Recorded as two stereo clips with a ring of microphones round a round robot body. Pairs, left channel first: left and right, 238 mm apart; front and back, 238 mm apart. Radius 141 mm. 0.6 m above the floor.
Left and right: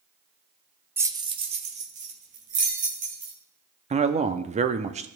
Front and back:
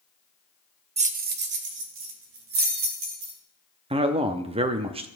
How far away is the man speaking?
About 0.6 m.